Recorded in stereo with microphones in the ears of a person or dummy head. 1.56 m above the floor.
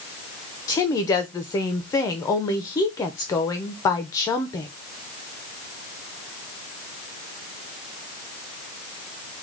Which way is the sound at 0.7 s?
15° left (ahead or behind).